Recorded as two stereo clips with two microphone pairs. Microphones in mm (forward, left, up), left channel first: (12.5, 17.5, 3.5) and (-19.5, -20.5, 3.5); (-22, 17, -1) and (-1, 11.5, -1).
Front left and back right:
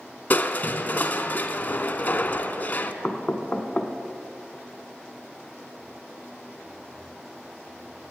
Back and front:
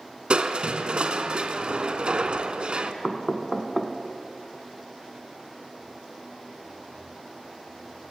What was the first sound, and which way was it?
Crushing, 10° left.